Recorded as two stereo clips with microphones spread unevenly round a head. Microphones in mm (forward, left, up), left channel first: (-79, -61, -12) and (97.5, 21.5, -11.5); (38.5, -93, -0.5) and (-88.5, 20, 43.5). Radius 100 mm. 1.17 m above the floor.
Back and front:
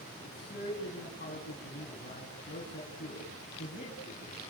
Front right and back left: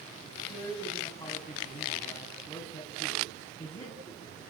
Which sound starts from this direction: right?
A man speaking, at 0.2 s.